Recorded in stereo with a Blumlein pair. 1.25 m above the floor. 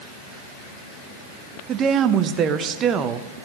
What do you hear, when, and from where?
1.7 s a woman speaking: 30° right, 0.8 m